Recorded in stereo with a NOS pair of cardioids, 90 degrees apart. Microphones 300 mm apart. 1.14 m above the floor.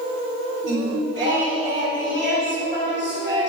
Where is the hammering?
No hammering in this recording.